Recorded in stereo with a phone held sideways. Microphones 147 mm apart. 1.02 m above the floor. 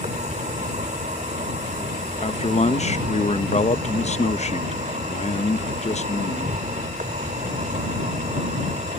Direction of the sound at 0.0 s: 60° right (ahead or behind).